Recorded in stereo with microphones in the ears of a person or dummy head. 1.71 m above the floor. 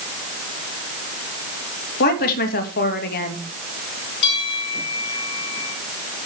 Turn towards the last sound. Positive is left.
turn(degrees=65)  # may be behind; listen again after turning